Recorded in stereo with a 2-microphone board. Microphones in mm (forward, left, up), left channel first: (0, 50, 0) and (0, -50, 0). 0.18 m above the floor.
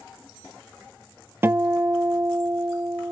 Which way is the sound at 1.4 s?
25° right (ahead or behind).